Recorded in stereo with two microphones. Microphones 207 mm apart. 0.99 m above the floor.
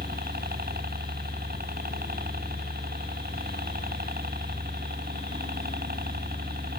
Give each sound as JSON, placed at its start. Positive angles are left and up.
{"t": 0.0, "sound": "a helicopter", "side_deg": -50}